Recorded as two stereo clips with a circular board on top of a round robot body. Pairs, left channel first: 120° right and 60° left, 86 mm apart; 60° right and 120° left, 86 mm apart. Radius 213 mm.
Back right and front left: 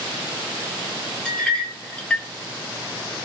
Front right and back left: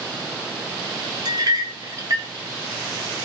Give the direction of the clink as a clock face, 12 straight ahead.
7 o'clock.